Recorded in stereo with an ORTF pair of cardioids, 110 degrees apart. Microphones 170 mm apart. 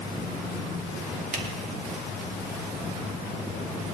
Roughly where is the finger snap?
Ahead right.